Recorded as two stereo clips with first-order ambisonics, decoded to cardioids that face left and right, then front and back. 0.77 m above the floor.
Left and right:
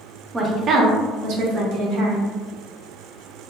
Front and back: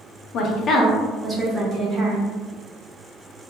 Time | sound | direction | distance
0.3 | a woman speaking | 15° right | 0.5 m